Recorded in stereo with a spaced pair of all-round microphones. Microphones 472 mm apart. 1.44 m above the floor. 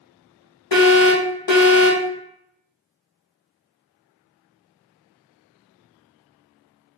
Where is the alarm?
65° left (ahead or behind), 1.2 m.